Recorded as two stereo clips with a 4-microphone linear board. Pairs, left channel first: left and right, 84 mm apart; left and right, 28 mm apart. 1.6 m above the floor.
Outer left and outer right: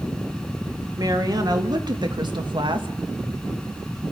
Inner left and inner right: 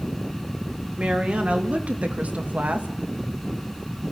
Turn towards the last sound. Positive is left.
turn(degrees=-75)  # may be behind; listen again after turning